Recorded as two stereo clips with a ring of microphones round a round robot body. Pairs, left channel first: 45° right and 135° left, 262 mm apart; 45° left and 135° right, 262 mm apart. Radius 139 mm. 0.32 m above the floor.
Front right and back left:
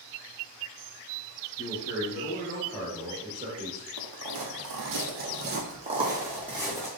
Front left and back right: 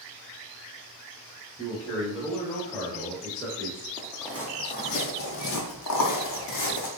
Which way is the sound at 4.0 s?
140° left.